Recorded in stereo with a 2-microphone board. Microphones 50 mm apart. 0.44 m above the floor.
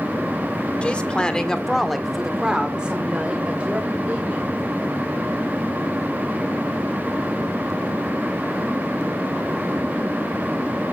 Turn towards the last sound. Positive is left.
turn(degrees=-30)  # may be behind; listen again after turning